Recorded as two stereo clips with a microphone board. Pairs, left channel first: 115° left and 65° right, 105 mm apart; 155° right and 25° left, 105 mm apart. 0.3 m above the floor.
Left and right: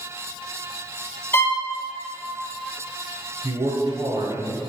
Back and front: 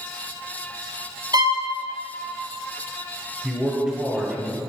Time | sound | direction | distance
1.3 | a violin | 55° left | 0.8 m
3.4 | a man speaking | 50° right | 1.1 m